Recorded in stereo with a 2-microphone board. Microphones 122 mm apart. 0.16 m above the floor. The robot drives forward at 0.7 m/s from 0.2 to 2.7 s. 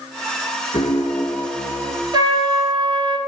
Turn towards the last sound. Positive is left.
turn(degrees=-50)  # may be behind; listen again after turning